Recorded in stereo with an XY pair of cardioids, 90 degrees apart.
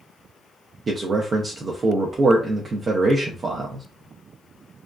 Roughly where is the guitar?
No guitar in this recording.